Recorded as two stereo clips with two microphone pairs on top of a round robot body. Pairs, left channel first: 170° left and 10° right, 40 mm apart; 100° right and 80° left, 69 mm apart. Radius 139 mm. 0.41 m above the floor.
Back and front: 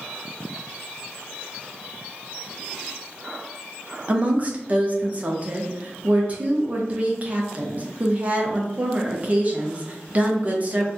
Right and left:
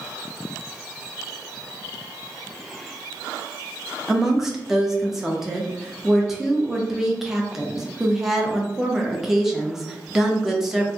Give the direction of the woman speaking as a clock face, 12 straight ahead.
12 o'clock.